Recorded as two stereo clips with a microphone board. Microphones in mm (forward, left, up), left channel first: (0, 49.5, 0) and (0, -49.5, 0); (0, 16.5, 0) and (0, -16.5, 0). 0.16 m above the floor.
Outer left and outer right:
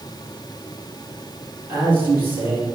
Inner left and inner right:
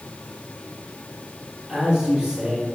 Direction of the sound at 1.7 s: 20° right (ahead or behind).